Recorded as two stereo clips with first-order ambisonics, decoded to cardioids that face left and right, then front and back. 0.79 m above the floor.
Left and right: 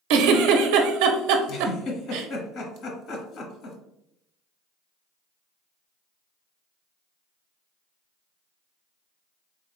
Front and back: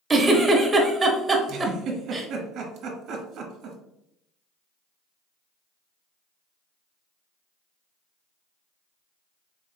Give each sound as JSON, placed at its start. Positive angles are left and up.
{"t": 0.1, "sound": "a giggle", "azimuth_deg": -100, "distance_m": 0.7}
{"t": 1.5, "sound": "a giggle", "azimuth_deg": 135, "distance_m": 1.2}